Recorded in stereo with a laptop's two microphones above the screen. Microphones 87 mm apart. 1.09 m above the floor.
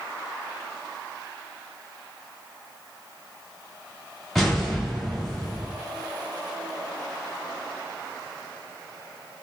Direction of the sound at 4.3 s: Centre (ahead or behind).